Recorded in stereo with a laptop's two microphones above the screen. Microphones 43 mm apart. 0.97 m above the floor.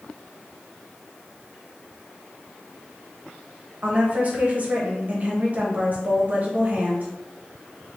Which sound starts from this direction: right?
A woman speaking, at 3.8 s.